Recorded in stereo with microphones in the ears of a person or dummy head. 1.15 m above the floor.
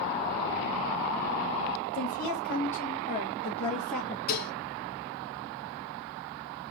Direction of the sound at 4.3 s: 45° left (ahead or behind).